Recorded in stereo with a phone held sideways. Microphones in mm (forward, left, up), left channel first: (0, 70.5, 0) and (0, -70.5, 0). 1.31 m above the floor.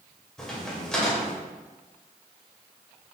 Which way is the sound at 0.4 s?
5° left (ahead or behind).